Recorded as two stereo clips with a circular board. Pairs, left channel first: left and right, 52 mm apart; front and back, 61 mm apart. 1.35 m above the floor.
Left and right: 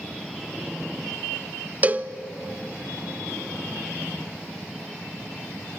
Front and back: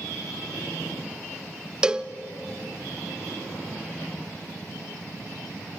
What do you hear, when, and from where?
1.8 s a cowbell: 115° right, 0.6 m